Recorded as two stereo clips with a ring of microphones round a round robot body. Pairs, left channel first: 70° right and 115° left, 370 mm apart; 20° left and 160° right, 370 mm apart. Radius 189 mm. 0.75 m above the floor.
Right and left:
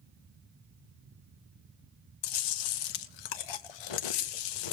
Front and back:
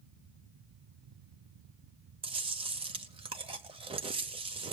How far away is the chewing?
About 0.8 m.